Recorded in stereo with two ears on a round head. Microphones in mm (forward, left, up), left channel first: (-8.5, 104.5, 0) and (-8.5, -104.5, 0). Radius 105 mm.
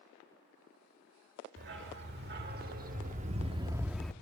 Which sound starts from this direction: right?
A dog barking, at 1.6 s.